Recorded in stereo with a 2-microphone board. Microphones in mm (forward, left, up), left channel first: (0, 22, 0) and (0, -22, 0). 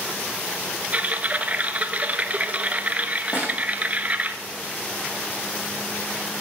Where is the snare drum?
45° left (ahead or behind), 4 m.